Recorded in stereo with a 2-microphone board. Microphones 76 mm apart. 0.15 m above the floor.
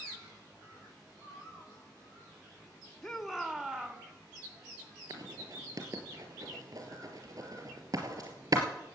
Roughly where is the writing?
Right.